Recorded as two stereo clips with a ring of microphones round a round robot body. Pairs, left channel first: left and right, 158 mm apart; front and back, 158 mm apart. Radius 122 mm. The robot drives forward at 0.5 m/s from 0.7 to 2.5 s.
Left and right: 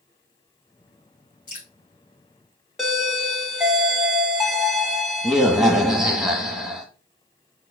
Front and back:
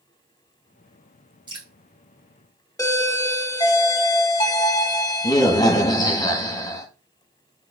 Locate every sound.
1.5 s dripping: 120° left, 3 m
2.8 s a doorbell: 10° right, 0.8 m